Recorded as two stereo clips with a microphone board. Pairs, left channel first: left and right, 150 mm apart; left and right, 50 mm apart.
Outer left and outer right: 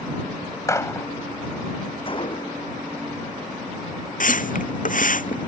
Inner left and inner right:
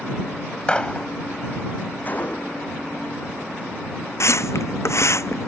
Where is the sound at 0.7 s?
20° left (ahead or behind).